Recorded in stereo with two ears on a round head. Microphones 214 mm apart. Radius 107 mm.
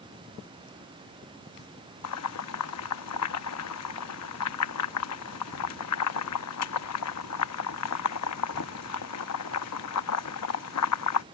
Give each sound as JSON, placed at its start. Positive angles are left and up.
{"t": 2.0, "sound": "boiling", "side_deg": 70}